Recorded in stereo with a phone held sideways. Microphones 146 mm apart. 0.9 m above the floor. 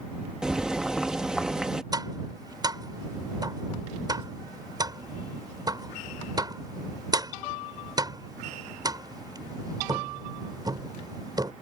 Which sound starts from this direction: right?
Tapping, at 1.9 s.